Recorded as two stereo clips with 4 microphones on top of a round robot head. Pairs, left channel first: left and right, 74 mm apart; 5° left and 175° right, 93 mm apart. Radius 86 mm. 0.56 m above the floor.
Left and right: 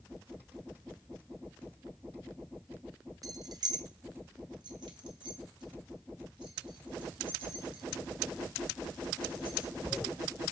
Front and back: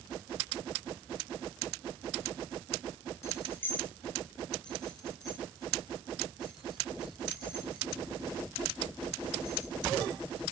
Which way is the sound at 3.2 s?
55° right.